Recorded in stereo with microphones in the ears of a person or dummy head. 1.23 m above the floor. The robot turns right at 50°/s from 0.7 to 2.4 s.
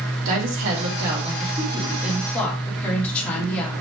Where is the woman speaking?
75° right, 3 m; by 3.7 s 10° left, 3 m.